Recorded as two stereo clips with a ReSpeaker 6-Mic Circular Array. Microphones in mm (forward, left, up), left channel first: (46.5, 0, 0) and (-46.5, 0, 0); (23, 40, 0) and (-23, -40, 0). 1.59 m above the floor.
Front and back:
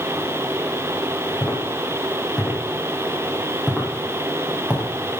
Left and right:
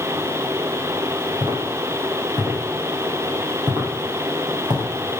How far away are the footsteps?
About 5 m.